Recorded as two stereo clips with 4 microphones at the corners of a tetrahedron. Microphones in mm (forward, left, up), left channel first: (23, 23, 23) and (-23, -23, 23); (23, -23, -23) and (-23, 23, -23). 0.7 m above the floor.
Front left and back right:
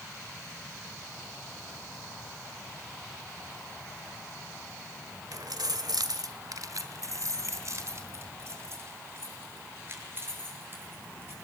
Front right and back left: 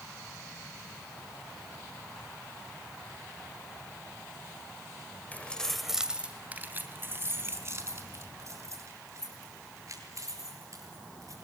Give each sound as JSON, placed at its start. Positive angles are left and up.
{"t": 5.3, "sound": "keys jangling", "azimuth_deg": -110, "distance_m": 1.5}